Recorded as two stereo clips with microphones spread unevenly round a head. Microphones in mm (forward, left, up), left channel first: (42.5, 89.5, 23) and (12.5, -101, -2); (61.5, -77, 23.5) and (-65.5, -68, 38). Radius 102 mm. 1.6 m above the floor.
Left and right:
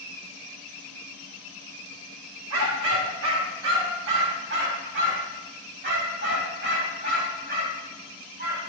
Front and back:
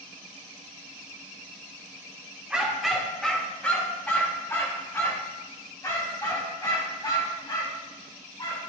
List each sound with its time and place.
2.5 s a dog barking: 105° right, 2 m; by 8.6 s 60° right, 5.5 m